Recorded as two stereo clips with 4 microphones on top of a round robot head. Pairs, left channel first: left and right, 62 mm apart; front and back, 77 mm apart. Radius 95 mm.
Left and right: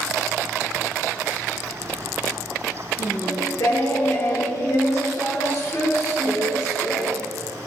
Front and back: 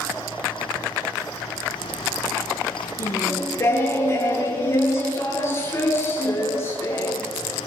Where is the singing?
55° left, 9.5 m.